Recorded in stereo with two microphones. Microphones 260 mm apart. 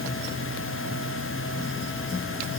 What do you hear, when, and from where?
Only background noise.